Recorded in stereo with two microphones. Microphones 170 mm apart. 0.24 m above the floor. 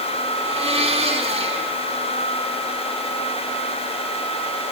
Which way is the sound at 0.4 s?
30° right (ahead or behind).